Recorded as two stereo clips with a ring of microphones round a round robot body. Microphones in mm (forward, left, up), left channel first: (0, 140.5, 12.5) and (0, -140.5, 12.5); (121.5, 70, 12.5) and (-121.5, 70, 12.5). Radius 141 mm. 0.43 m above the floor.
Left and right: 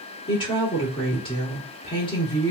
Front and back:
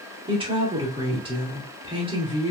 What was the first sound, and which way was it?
A woman speaking, 140° left.